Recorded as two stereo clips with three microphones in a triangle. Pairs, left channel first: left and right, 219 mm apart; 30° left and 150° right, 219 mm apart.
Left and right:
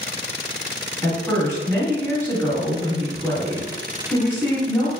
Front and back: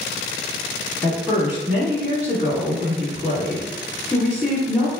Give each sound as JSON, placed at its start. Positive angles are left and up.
{"t": 1.0, "sound": "a woman speaking", "azimuth_deg": 145, "distance_m": 1.6}